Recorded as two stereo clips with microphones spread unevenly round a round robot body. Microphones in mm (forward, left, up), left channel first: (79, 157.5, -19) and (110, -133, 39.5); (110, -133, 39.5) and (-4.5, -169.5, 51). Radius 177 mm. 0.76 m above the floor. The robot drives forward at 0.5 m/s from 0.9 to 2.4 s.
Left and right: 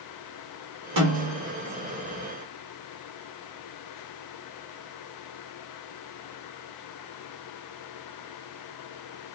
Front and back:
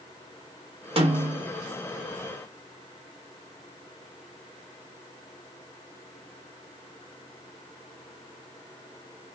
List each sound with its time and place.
1.0 s a snare drum: 120° right, 1.4 m; by 1.5 s 125° right, 1.6 m